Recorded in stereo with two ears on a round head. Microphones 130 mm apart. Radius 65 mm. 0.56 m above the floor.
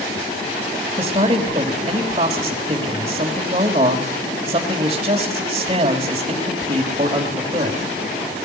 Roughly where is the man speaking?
Right.